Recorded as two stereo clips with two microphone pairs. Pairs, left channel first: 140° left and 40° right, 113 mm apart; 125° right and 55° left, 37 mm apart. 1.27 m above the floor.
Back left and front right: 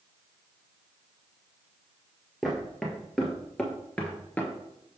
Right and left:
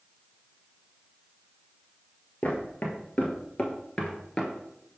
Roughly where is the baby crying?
No baby crying in this recording.